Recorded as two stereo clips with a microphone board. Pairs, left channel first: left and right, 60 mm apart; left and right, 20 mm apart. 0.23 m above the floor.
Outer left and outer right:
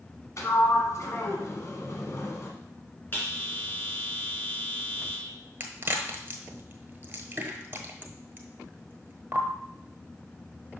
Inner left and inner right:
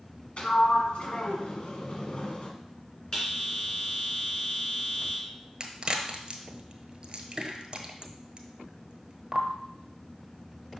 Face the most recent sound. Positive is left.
turn(degrees=-35)  # may be behind; listen again after turning